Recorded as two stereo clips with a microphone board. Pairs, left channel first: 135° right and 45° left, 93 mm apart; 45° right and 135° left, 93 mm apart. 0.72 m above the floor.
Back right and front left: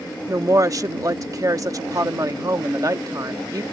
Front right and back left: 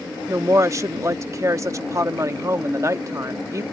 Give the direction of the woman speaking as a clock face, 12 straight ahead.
9 o'clock.